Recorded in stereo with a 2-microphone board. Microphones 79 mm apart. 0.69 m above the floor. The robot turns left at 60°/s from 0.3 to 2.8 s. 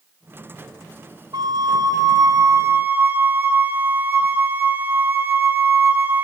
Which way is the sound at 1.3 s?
65° right.